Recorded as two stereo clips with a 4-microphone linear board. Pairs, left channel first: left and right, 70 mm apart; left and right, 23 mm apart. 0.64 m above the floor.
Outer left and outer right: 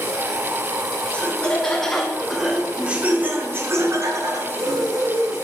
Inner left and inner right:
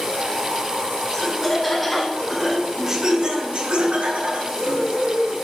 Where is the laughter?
15° left (ahead or behind), 1.9 m; by 5.3 s 70° right (ahead or behind), 1.9 m.